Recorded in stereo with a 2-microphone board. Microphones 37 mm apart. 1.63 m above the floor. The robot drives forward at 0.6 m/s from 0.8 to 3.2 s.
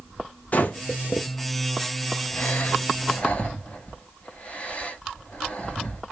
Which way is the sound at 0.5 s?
45° left (ahead or behind).